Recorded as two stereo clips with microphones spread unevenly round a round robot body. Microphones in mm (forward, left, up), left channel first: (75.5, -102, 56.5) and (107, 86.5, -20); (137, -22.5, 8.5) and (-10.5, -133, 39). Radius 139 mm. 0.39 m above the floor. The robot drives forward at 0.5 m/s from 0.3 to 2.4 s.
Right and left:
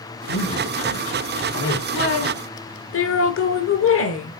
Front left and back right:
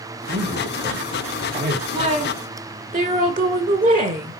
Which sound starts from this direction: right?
A woman speaking, at 1.9 s.